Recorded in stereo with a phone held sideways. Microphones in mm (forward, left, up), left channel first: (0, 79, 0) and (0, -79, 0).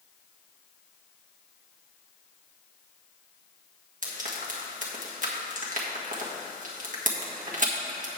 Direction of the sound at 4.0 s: 55° right (ahead or behind).